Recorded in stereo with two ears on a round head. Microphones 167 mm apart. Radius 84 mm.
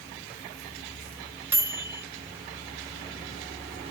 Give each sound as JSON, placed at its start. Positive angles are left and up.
{"t": 1.5, "sound": "a microwave", "side_deg": -10, "distance_m": 0.7}